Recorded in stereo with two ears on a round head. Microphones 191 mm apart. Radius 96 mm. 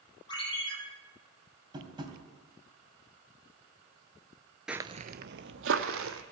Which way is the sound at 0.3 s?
20° left (ahead or behind).